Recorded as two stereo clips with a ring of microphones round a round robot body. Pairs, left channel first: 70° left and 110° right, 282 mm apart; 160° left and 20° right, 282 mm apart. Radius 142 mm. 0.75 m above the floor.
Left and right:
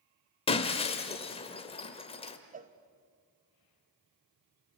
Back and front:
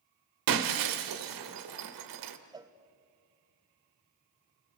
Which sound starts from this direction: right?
A cowbell, at 2.5 s.